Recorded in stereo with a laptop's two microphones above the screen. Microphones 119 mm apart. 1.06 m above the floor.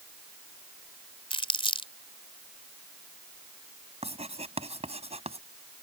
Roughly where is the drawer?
No drawer in this recording.